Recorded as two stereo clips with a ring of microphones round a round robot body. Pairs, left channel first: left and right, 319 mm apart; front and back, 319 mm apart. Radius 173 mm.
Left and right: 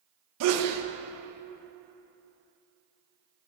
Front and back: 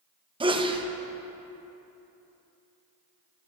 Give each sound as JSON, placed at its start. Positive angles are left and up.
{"t": 0.4, "sound": "a sneeze", "azimuth_deg": -110, "distance_m": 1.1}